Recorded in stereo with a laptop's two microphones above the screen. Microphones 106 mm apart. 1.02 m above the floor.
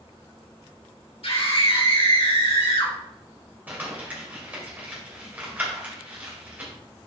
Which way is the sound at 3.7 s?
15° right (ahead or behind).